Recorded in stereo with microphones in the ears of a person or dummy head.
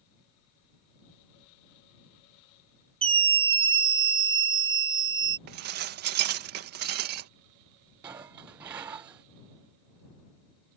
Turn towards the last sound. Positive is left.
turn(degrees=-10)  # may be behind; listen again after turning